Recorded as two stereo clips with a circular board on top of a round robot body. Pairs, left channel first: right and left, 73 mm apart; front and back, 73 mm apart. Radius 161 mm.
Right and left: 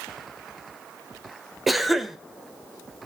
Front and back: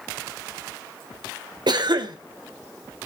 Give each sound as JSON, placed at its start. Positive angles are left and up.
{"t": 1.7, "sound": "a cough", "azimuth_deg": 180, "distance_m": 2.0}